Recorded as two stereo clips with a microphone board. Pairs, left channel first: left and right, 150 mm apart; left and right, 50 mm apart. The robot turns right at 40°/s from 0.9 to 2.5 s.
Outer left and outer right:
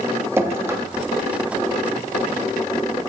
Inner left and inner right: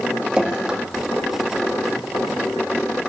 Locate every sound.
0.4 s dripping: 15° right (ahead or behind), 0.8 m